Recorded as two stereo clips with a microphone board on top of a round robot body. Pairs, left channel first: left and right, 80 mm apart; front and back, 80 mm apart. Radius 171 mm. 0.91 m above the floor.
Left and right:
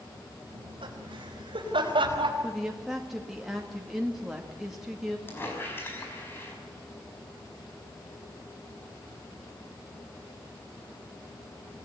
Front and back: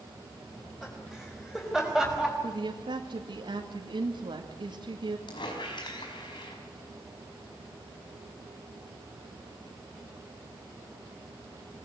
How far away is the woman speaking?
About 2 m.